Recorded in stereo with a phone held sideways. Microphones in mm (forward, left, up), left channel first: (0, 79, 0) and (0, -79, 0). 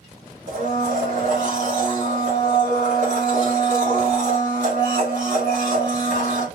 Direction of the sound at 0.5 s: 50° right (ahead or behind).